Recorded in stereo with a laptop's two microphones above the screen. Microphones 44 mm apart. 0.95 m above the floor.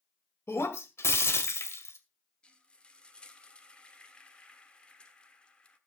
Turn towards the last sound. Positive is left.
turn(degrees=20)  # may be behind; listen again after turning